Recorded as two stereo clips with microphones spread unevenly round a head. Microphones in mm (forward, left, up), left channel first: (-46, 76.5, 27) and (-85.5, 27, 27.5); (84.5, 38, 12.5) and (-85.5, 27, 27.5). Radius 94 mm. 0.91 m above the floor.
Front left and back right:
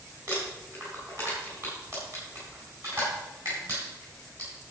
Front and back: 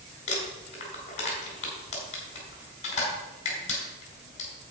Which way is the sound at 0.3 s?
55° right.